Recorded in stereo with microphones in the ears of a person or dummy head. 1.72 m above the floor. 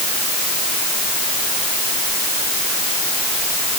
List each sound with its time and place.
Only background noise.